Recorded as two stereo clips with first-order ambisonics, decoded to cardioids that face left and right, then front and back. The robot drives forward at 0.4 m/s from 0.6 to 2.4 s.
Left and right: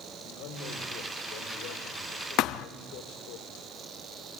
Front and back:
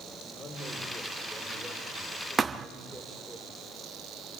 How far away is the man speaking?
About 5 m.